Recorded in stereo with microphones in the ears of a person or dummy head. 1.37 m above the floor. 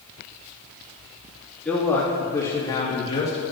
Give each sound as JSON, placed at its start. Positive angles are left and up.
{"t": 1.6, "sound": "a man speaking", "side_deg": 0, "distance_m": 2.5}